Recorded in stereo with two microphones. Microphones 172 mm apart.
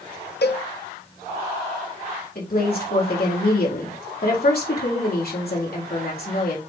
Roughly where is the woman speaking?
Left.